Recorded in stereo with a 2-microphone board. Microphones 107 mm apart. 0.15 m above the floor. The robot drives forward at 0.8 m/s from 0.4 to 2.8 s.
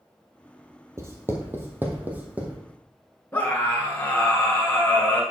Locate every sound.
1.0 s writing: 30° right (ahead or behind), 1.4 m; by 2.6 s 15° right (ahead or behind), 2.5 m
3.3 s a scream: 15° left (ahead or behind), 1.5 m